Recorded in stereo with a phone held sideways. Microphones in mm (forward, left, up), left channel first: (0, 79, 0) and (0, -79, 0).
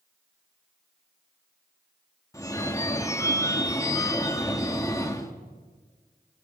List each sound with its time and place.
2.3 s a phone ringing: 20° left (ahead or behind), 1.6 m